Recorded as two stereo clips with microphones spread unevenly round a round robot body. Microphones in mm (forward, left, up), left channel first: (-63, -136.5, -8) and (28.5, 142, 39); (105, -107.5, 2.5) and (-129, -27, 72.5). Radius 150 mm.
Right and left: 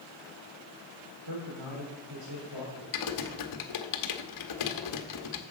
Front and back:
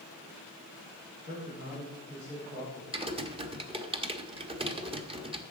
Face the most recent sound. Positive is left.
turn(degrees=-130)